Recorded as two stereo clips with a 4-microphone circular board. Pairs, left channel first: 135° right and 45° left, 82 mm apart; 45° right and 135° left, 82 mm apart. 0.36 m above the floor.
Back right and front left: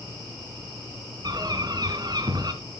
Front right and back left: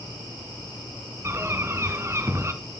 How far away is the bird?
About 2.5 m.